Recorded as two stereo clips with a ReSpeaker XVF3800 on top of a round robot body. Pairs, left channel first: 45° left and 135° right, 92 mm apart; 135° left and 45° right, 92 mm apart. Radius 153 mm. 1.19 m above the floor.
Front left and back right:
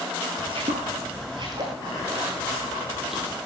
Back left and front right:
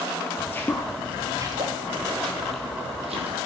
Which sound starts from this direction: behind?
Footsteps, at 0.4 s.